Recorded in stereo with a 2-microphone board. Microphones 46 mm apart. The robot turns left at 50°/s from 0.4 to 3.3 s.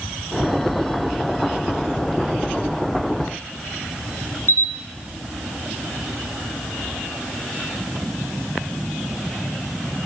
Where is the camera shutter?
55° left (ahead or behind), 2 m.